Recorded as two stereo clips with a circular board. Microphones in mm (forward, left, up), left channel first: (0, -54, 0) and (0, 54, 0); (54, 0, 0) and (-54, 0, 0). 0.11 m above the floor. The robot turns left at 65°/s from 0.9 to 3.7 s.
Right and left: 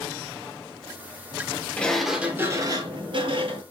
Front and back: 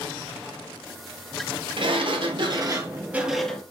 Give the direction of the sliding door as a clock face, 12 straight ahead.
5 o'clock.